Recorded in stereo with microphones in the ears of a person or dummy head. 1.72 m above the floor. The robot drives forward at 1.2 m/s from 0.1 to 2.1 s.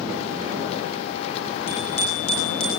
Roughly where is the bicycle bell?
Left.